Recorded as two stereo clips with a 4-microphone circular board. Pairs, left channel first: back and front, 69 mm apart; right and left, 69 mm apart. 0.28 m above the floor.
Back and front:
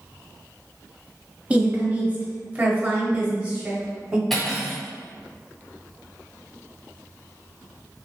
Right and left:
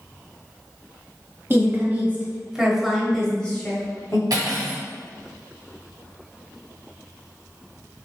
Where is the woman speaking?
60° left, 1.2 m; by 4.2 s 55° right, 1.2 m.